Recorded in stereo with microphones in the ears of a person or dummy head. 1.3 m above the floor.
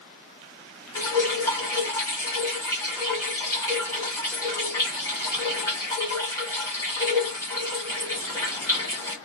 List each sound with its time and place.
0.9 s dripping: 25° left (ahead or behind), 1.3 m